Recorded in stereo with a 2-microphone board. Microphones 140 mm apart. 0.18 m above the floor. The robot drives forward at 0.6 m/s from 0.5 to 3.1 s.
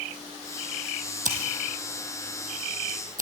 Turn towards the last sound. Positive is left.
turn(degrees=-75)  # may be behind; listen again after turning